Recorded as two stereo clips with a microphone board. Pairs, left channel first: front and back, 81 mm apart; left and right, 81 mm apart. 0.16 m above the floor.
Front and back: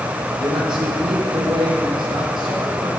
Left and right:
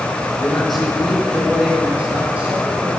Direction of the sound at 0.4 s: 175° left.